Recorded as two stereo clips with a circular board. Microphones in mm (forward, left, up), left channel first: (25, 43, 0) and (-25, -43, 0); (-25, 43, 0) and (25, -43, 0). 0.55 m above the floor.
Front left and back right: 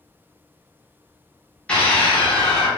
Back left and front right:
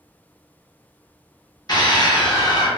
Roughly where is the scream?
Behind left.